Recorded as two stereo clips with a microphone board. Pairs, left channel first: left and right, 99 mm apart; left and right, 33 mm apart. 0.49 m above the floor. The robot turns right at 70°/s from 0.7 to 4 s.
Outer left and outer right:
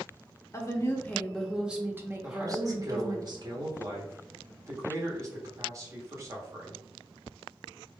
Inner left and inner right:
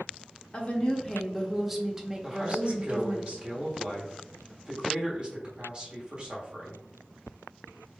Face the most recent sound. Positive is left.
turn(degrees=-45)